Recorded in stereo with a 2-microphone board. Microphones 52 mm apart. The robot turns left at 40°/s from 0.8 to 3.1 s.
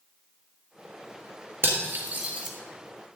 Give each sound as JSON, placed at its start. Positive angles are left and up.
{"t": 1.6, "sound": "cutlery clinking", "side_deg": -50, "distance_m": 1.7}